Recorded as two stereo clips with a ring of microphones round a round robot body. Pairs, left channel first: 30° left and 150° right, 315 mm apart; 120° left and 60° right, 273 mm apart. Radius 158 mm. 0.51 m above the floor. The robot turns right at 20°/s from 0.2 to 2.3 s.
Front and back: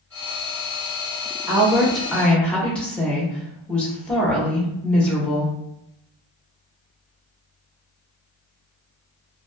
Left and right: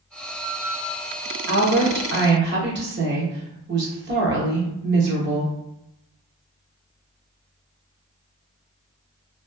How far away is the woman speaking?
About 0.8 m.